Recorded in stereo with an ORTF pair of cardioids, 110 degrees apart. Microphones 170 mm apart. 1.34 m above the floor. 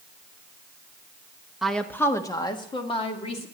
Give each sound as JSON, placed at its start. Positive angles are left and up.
{"t": 1.6, "sound": "a woman speaking", "azimuth_deg": 0, "distance_m": 1.3}